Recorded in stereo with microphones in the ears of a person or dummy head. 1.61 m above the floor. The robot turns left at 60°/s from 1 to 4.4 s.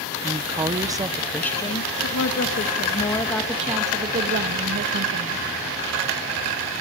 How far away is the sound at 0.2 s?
About 0.9 m.